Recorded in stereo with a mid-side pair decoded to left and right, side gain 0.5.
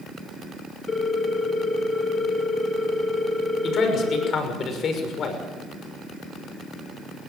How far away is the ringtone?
About 3 m.